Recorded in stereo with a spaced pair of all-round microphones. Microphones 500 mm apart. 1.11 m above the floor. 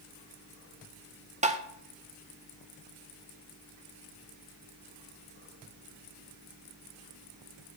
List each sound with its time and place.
1.4 s tapping: 15° right (ahead or behind), 0.6 m